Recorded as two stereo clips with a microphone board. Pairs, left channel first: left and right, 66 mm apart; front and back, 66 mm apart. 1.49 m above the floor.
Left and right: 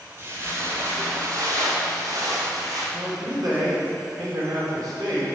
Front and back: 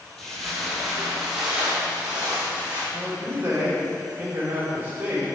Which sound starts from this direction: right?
Footsteps, at 0.2 s.